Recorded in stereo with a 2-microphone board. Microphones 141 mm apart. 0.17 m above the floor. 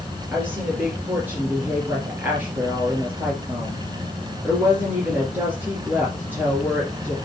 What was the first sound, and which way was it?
A woman speaking, 15° right (ahead or behind).